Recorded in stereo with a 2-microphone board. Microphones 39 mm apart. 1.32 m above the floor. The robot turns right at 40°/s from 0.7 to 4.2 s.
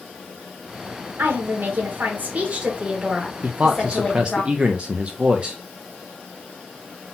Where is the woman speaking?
85° right, 1.5 m; by 4.4 s 35° left, 1.5 m.